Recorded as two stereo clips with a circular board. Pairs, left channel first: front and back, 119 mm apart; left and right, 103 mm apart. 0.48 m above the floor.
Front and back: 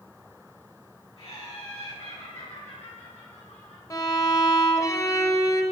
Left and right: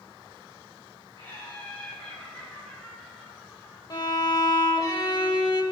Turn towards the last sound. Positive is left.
turn(degrees=55)